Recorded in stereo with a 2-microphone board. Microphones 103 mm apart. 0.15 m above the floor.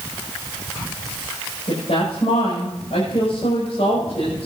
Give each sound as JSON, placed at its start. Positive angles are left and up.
{"t": 1.7, "sound": "a woman speaking", "side_deg": 80, "distance_m": 7.5}